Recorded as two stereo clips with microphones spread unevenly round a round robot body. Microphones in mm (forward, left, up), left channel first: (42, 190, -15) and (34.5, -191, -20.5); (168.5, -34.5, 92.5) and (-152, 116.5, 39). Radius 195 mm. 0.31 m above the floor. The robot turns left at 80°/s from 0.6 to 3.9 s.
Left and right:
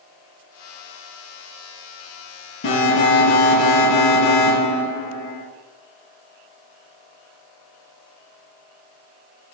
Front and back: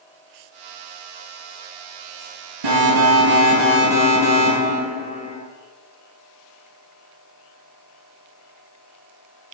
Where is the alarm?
150° left, 8.5 m; by 5.4 s 50° left, 8.5 m.